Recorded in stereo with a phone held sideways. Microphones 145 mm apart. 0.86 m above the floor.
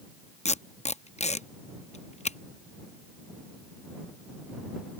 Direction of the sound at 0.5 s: 50° left (ahead or behind).